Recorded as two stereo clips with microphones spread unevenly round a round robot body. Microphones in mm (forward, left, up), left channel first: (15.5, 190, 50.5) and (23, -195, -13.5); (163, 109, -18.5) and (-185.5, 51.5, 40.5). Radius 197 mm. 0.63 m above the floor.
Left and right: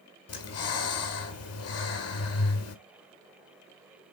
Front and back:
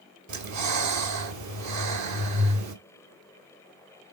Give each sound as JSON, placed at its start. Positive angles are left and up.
{"t": 0.3, "sound": "breathing", "azimuth_deg": 145, "distance_m": 1.4}